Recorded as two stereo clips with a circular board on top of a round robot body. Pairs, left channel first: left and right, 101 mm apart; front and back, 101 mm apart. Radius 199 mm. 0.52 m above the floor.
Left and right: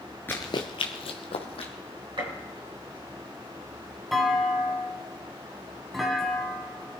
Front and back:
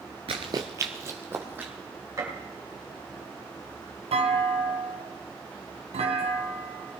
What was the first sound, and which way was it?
Running footsteps, 160° left.